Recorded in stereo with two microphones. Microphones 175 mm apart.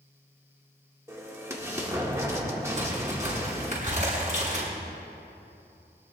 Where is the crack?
45° right (ahead or behind), 6.5 m.